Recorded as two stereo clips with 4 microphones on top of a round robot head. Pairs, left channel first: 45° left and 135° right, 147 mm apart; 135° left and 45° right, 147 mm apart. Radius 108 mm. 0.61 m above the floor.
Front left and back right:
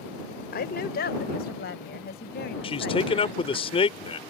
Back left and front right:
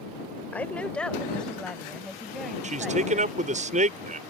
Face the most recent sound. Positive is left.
turn(degrees=-5)